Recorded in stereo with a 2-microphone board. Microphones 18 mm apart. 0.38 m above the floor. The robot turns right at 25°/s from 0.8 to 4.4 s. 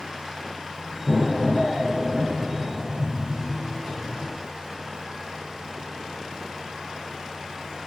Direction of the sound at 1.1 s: 170° left.